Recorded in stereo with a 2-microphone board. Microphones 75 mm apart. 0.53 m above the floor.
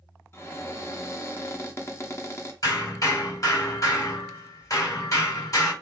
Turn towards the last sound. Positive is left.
turn(degrees=50)  # may be behind; listen again after turning